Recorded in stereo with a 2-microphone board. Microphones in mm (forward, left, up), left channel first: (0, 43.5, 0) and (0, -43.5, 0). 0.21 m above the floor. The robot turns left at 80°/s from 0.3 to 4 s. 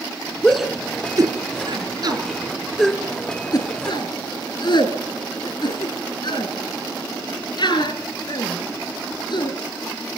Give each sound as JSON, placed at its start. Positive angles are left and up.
{"t": 0.4, "sound": "a shout", "side_deg": 15, "distance_m": 2.0}